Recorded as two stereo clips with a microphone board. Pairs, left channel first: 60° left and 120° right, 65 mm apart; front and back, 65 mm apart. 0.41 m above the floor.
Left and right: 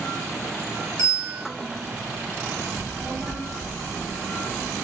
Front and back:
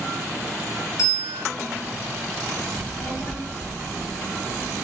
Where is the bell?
25° left, 1.5 m.